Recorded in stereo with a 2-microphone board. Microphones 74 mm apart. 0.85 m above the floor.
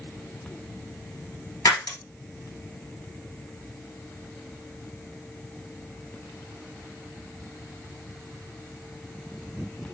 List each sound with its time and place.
1.6 s breaking glass: 55° left (ahead or behind), 1.4 m